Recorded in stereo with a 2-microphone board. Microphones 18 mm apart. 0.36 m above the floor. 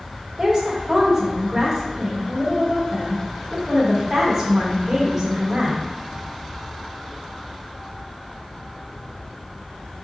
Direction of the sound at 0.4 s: 20° right (ahead or behind).